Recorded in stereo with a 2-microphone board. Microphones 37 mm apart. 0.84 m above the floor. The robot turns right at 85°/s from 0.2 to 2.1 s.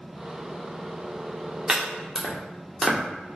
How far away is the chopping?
About 0.7 m.